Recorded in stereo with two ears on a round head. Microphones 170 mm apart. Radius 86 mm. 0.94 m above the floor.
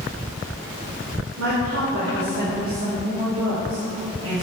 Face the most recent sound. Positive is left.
turn(degrees=-65)  # may be behind; listen again after turning